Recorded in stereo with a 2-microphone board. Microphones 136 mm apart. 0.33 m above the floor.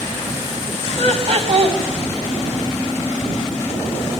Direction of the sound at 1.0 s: 55° right (ahead or behind).